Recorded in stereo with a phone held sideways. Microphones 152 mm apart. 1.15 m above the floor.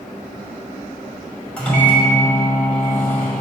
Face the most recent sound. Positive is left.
turn(degrees=10)  # may be behind; listen again after turning